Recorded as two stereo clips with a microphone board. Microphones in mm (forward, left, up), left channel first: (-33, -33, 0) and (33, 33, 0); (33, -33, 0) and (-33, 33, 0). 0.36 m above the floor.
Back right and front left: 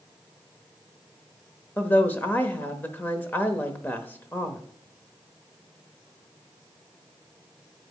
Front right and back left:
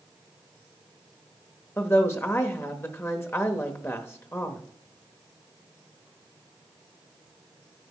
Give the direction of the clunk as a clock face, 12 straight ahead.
I don't hear a clunk.